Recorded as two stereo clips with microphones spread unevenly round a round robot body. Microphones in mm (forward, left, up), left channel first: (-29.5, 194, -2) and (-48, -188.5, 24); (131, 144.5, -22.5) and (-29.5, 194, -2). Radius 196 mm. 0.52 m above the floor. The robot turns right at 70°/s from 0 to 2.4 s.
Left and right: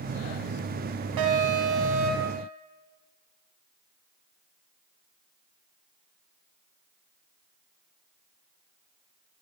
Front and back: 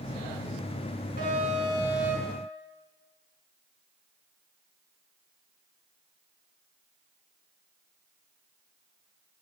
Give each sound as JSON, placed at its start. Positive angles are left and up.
{"t": 1.2, "sound": "an alarm", "azimuth_deg": -130, "distance_m": 4.5}